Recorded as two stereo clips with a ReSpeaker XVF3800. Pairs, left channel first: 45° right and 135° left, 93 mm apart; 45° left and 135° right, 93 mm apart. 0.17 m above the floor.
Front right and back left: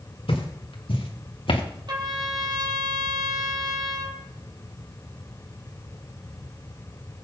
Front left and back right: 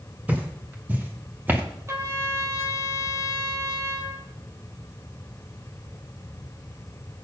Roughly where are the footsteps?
Ahead right.